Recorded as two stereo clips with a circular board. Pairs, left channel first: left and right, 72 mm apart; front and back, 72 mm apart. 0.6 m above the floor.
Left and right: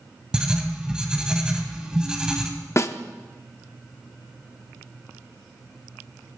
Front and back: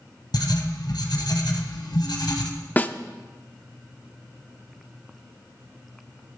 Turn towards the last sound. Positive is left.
turn(degrees=60)